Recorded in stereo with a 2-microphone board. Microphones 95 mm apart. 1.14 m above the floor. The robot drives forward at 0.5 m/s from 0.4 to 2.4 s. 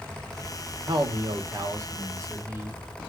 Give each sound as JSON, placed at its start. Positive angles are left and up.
{"t": 0.9, "sound": "a man speaking", "side_deg": -55, "distance_m": 0.9}